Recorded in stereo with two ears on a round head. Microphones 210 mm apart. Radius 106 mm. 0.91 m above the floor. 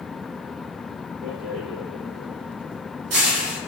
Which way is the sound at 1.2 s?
65° right (ahead or behind).